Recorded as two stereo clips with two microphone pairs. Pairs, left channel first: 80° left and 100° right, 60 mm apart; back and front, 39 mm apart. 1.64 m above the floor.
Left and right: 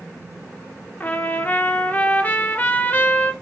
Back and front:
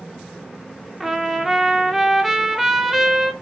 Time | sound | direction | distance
1.0 | a trumpet | 75° left | 0.6 m